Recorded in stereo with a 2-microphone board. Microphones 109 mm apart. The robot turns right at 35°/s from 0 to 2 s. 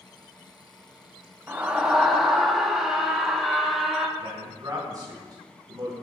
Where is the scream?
20° right (ahead or behind), 0.9 m; by 4.1 s 5° right (ahead or behind), 0.9 m.